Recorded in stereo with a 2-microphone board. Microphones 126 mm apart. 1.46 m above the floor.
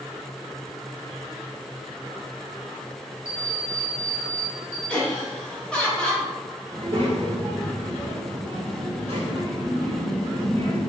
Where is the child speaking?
50° right (ahead or behind), 1.1 m.